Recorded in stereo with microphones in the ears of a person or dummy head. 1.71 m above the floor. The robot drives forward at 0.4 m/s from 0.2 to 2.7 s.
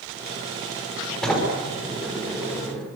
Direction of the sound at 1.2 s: 5° left (ahead or behind).